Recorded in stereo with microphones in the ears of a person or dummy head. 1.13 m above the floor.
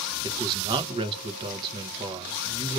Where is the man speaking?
25° right (ahead or behind), 0.8 m.